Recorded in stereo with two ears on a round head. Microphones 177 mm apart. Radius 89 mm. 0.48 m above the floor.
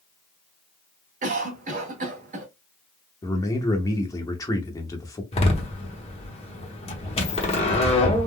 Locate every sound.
1.2 s a cough: 40° right (ahead or behind), 1.2 m
3.2 s a man speaking: 15° left (ahead or behind), 0.7 m
5.3 s a door slam: 30° left (ahead or behind), 0.9 m